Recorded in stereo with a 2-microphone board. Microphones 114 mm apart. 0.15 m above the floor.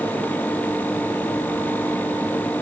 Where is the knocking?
I don't hear knocking.